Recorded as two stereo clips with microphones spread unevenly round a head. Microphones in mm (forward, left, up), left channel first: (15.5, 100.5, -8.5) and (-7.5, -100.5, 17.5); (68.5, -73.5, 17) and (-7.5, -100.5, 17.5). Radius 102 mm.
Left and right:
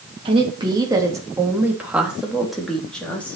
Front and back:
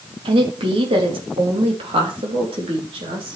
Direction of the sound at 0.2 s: 165° right.